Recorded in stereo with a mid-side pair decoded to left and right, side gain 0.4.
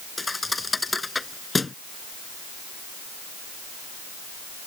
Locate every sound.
0.2 s a thud: 25° left